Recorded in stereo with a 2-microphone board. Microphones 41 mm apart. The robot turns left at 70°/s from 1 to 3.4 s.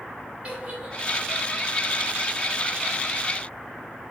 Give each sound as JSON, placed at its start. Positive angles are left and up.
{"t": 0.4, "sound": "a giggle", "side_deg": -30, "distance_m": 2.5}